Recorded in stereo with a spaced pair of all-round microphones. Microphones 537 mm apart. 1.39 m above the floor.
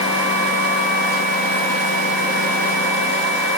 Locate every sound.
Only background noise.